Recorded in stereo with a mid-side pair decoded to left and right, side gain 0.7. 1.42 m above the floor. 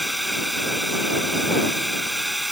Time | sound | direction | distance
0.0 | a drone | 5° right | ?